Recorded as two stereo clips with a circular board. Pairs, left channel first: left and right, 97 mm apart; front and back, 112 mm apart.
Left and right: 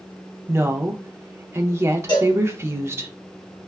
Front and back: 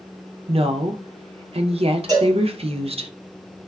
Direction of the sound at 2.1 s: 130° left.